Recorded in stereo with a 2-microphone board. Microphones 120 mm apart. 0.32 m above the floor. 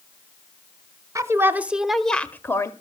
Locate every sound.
1.1 s a woman speaking: 25° right (ahead or behind), 1.0 m; by 2.7 s 25° left (ahead or behind), 1.0 m